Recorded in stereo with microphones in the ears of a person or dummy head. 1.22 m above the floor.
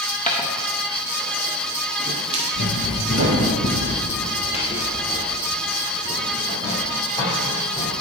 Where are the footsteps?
5° left (ahead or behind), 1.5 m; by 3.5 s 55° right (ahead or behind), 2 m.